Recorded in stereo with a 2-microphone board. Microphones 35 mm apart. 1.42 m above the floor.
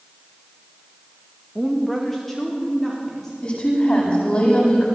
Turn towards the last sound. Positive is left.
turn(degrees=45)  # may be behind; listen again after turning